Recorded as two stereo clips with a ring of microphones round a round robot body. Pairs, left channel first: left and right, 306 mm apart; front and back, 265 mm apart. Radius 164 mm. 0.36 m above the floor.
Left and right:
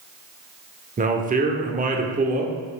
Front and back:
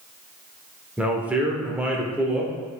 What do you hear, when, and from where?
1.0 s a man speaking: 100° right, 0.9 m